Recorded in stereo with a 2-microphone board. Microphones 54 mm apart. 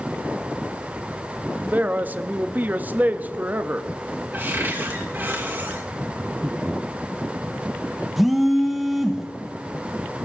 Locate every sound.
1.7 s a man speaking: 35° right (ahead or behind), 0.6 m
4.3 s a cupboard door: 40° right (ahead or behind), 2.5 m
6.2 s breathing: 60° right (ahead or behind), 0.9 m
8.2 s a phone buzzing: centre (ahead or behind), 1.4 m